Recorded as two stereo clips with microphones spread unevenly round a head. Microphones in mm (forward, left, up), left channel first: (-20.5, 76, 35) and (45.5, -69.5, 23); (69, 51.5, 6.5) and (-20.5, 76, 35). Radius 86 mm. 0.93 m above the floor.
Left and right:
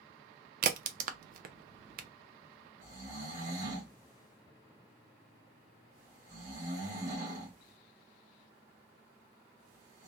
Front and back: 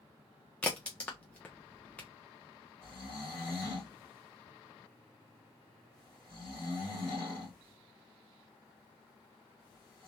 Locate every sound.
0.6 s a crack: 85° right, 0.5 m
2.8 s snoring: 80° right, 1.4 m